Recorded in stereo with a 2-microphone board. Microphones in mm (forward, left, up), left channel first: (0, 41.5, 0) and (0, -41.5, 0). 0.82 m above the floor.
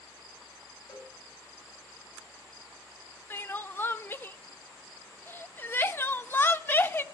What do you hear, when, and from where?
0.9 s a cowbell: 65° left (ahead or behind), 4.5 m
3.3 s crying: 25° left (ahead or behind), 0.6 m